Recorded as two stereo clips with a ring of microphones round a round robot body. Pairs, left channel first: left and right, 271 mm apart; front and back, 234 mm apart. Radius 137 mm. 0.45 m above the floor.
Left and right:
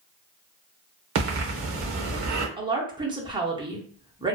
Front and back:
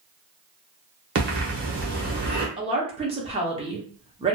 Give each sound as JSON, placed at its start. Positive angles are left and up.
{"t": 1.1, "sound": "breathing", "azimuth_deg": -130, "distance_m": 0.8}
{"t": 2.6, "sound": "a woman speaking", "azimuth_deg": -145, "distance_m": 0.7}